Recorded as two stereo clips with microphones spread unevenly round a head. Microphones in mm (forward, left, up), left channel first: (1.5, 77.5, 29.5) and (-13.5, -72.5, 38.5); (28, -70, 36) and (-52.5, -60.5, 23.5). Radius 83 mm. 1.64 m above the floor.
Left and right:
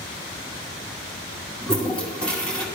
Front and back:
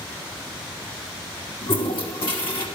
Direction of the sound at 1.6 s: Straight ahead.